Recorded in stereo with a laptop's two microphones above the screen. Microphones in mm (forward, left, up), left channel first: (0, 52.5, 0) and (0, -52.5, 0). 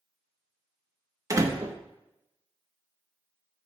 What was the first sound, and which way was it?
A door slam, 30° right (ahead or behind).